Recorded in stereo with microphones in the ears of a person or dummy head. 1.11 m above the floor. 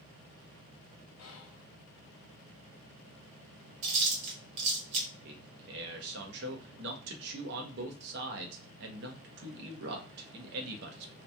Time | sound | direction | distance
1.2 | whispering | 70° left (ahead or behind) | 0.5 m
3.8 | chewing | 40° right (ahead or behind) | 1.1 m
5.2 | a man speaking | 55° right (ahead or behind) | 0.8 m